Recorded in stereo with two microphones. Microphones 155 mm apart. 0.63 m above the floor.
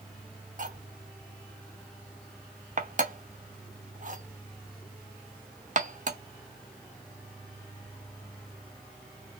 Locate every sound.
0.6 s cutlery clinking: 55° right (ahead or behind), 0.8 m